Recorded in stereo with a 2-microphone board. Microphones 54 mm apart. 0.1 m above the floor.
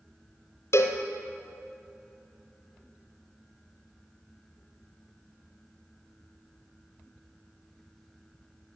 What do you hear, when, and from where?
0.7 s a cowbell: 60° left (ahead or behind), 0.8 m